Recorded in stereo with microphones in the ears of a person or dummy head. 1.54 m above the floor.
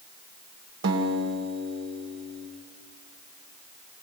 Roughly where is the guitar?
Right.